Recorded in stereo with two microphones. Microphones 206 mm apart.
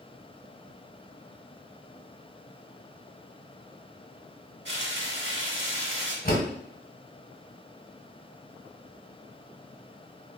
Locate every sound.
4.7 s frying: 65° right (ahead or behind), 0.8 m
6.2 s a door slam: 50° left (ahead or behind), 1.1 m